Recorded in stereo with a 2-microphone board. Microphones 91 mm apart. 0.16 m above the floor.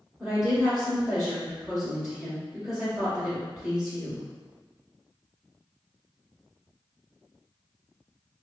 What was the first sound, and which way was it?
A woman speaking, 5° right (ahead or behind).